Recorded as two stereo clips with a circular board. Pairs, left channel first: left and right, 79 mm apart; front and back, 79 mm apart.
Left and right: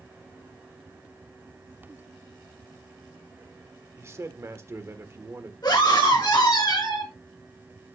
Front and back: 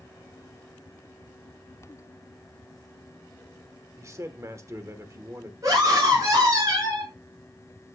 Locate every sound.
4.0 s a man speaking: 140° right, 1.3 m
5.6 s a scream: 130° left, 6.5 m